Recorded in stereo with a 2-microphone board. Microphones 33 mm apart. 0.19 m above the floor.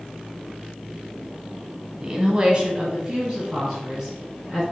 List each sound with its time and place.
2.0 s a woman speaking: 20° right (ahead or behind), 1.3 m